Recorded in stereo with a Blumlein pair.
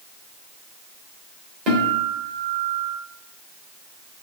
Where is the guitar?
35° right, 3 m.